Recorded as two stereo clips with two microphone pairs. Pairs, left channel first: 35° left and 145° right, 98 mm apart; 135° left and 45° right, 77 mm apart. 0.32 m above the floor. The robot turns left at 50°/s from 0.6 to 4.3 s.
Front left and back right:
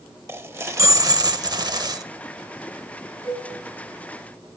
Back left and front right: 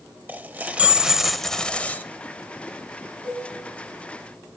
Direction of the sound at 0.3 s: 95° right.